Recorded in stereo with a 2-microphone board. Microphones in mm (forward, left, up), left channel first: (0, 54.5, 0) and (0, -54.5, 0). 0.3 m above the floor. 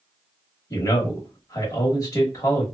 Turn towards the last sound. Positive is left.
turn(degrees=35)  # may be behind; listen again after turning